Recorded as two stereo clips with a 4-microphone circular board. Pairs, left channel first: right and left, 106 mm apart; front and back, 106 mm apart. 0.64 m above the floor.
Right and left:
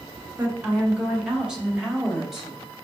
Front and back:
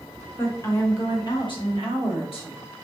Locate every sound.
0.4 s a woman speaking: 40° left, 0.8 m; by 2.6 s 5° left, 1.6 m